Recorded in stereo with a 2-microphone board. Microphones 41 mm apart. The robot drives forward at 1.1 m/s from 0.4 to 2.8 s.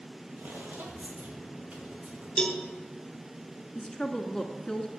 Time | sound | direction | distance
0.4 | footsteps | 65° right (ahead or behind) | 3 m
2.4 | a cowbell | 20° left (ahead or behind) | 1.6 m
3.8 | a woman speaking | 20° left (ahead or behind) | 1.1 m